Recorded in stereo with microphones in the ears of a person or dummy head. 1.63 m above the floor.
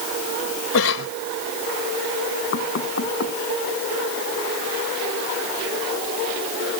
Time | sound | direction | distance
0.7 | a cough | 85° left | ?
2.5 | knocking | 65° left (ahead or behind) | ?